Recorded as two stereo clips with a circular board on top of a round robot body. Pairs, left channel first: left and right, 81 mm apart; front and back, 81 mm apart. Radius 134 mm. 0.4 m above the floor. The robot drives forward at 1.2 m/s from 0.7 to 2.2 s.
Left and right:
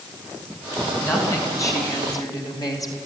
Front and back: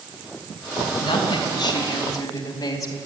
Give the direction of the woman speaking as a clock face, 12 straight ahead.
11 o'clock.